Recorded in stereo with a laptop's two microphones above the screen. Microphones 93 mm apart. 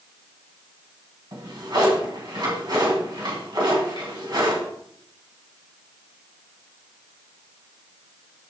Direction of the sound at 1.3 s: 50° right (ahead or behind).